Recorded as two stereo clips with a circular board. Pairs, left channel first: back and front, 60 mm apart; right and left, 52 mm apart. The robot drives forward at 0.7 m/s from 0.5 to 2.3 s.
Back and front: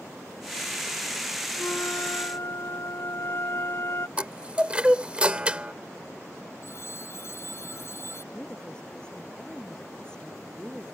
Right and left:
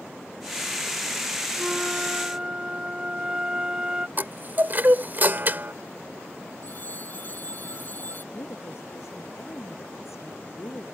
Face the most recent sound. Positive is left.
turn(degrees=-105)